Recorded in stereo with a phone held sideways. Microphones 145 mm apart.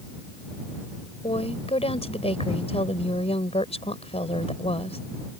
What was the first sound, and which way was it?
A woman speaking, 45° left (ahead or behind).